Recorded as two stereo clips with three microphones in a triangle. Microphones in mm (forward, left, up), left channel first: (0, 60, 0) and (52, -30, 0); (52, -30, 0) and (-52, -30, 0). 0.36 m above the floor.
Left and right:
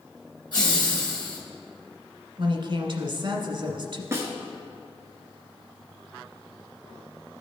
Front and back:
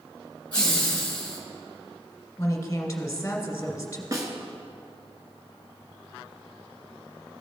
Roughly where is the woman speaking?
Ahead right.